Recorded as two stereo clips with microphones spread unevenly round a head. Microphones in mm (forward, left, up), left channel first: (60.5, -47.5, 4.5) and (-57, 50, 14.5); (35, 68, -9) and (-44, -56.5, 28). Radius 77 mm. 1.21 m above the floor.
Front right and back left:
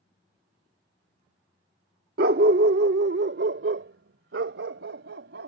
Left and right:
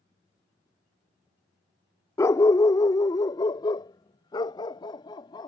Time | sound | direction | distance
2.2 | a dog barking | 135° left | ?